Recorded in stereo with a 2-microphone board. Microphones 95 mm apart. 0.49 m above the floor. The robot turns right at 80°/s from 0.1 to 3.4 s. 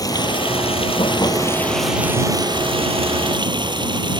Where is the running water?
40° left; by 4.2 s 55° right.